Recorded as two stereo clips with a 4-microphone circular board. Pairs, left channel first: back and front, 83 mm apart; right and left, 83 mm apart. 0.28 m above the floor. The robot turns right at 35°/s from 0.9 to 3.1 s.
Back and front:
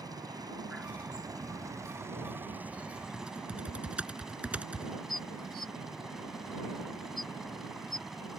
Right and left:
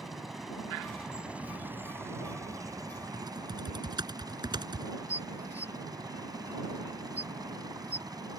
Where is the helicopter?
5° left; by 8.4 s 85° left.